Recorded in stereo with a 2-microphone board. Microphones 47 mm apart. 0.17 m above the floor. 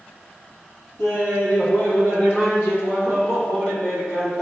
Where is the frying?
No frying in this recording.